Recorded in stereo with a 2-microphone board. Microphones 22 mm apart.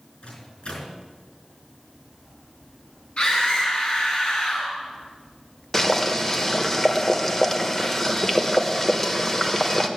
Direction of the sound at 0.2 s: 55° left (ahead or behind).